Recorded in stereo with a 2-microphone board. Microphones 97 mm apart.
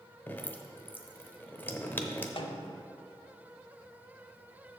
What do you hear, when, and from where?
0.3 s dripping: 20° left (ahead or behind), 0.7 m
2.4 s a snare drum: 65° left (ahead or behind), 0.6 m